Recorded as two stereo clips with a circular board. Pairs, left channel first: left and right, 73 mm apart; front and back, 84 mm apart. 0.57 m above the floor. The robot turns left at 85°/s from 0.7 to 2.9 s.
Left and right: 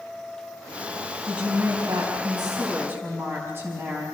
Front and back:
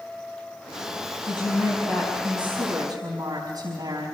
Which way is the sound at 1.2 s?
5° right.